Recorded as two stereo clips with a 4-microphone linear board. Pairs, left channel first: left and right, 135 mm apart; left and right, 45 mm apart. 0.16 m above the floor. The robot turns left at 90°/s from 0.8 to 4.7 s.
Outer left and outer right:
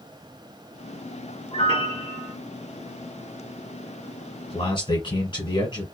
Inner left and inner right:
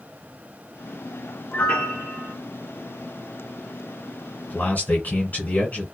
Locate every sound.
1.5 s a piano: 90° left, 1.3 m; by 2.3 s 15° left, 1.3 m
4.5 s a man speaking: 45° left (ahead or behind), 1.6 m; by 5.8 s 35° left (ahead or behind), 1.6 m